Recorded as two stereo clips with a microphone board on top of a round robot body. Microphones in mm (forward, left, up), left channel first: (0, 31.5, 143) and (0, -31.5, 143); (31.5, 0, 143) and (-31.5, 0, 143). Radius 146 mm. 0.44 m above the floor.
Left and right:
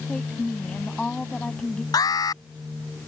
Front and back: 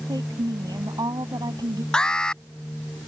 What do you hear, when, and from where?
0.1 s a woman speaking: 165° left
1.9 s an alarm: 80° left